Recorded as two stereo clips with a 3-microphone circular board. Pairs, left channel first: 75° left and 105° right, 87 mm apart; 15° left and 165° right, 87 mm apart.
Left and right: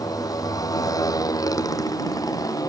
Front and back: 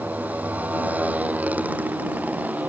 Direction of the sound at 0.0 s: 120° left.